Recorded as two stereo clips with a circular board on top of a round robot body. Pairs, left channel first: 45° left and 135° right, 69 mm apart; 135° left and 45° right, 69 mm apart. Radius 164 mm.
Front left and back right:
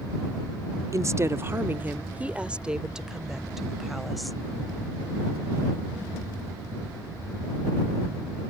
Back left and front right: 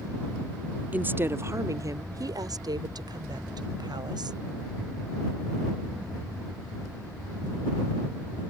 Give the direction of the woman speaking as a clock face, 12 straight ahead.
4 o'clock.